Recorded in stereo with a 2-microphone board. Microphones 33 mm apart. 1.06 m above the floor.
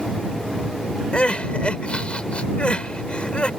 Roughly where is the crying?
Left.